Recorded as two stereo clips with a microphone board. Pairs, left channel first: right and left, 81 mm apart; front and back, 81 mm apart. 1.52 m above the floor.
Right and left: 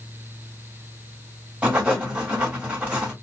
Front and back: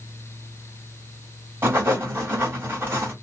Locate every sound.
1.6 s writing: 160° left, 1.5 m